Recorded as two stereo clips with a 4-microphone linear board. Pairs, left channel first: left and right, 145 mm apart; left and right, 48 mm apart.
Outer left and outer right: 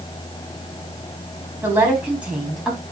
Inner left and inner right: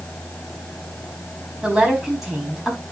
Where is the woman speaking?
15° right (ahead or behind), 4.5 m; by 2.8 s centre (ahead or behind), 5 m.